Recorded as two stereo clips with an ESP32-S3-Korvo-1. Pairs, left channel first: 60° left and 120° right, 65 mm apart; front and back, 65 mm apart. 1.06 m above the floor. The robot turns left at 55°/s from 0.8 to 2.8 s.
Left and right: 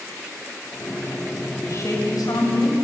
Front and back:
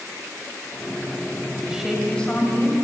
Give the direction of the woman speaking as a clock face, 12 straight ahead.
9 o'clock.